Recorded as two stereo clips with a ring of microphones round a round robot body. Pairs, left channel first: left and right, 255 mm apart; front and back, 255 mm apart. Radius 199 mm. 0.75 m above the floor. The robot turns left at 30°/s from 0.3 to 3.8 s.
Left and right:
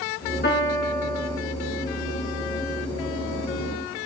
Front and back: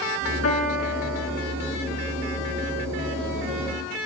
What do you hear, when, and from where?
0.4 s a piano: 40° left, 4 m; by 1.4 s 10° left, 4 m